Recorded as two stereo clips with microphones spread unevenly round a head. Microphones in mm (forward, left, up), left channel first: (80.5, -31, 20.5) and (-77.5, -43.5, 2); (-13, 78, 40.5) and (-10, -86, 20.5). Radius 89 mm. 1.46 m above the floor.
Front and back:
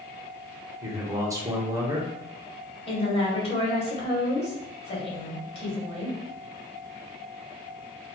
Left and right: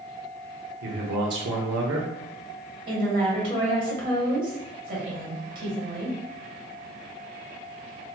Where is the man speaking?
105° right, 0.8 m.